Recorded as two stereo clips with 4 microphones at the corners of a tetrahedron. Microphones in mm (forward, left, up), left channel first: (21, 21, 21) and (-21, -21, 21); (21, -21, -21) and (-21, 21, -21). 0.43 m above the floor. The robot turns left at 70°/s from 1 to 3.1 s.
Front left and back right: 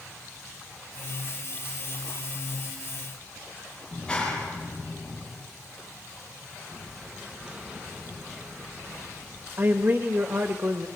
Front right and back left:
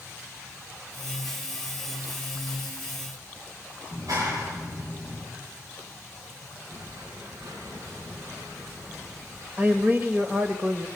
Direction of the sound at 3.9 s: 120° left.